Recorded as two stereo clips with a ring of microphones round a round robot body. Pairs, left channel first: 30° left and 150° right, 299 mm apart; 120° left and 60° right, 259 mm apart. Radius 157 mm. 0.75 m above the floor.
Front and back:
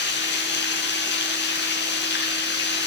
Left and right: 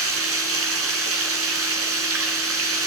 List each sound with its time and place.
0.0 s running water: 25° right, 4 m